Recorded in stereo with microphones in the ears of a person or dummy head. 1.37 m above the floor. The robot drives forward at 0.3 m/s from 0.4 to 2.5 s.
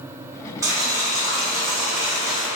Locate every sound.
0.6 s boiling: 15° right (ahead or behind), 0.7 m; by 2.5 s 10° right (ahead or behind), 1.2 m